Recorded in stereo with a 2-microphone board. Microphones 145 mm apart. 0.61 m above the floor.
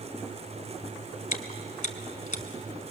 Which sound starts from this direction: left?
Chewing, at 1.3 s.